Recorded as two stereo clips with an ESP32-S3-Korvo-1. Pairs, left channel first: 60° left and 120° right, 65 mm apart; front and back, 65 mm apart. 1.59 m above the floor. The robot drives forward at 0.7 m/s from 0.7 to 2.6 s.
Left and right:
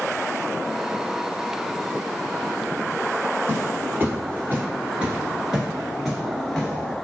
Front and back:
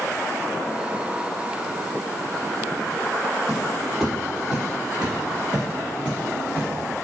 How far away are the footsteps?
About 2.0 m.